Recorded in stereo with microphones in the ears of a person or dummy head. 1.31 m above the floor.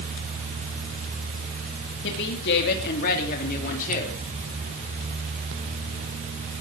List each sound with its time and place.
2.0 s a woman speaking: 65° left (ahead or behind), 3 m; by 4.2 s 45° left (ahead or behind), 3.5 m